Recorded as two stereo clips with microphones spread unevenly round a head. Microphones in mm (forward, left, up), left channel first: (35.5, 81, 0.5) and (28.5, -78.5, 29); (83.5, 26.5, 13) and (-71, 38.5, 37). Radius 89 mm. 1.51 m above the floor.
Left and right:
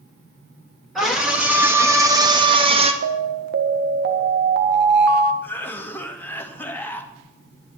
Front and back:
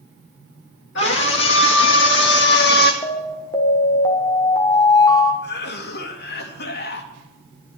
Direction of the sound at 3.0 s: 75° right.